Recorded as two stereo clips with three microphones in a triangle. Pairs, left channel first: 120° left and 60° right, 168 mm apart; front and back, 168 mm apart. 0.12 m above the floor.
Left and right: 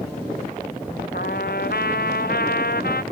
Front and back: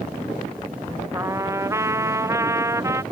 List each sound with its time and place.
1.1 s a trumpet: 110° left